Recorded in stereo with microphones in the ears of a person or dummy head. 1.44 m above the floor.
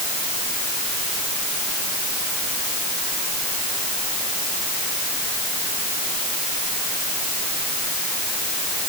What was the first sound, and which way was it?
Only background noise.